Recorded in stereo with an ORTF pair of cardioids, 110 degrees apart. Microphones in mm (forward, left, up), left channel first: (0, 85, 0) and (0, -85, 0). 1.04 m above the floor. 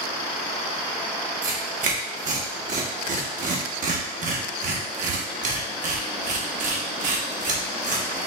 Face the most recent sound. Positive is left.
turn(degrees=-50)